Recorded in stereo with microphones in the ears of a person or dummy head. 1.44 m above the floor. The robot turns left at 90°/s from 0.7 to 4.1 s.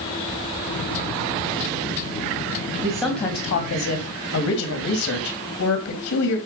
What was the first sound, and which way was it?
A man speaking, 155° right.